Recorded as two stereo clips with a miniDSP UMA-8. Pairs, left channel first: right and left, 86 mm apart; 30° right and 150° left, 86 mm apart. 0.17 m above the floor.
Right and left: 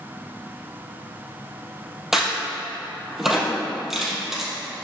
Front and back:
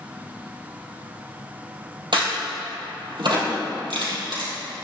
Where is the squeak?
I don't hear a squeak.